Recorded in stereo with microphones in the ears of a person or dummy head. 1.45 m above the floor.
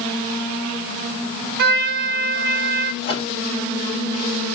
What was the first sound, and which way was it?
A trumpet, 60° right (ahead or behind).